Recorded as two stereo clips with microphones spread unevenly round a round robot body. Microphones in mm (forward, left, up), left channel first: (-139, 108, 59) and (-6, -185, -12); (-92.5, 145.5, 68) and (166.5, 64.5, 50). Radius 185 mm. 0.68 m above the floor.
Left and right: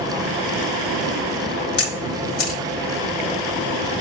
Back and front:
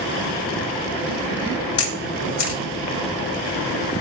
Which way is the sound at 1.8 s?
125° left.